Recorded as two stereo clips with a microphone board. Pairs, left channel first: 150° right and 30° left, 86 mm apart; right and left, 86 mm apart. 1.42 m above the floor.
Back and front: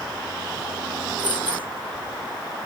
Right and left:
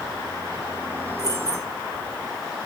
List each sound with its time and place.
1.2 s keys jangling: 40° right, 1.4 m